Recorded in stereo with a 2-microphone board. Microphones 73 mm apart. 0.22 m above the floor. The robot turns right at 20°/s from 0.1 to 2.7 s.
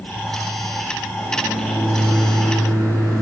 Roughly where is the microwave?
Behind left.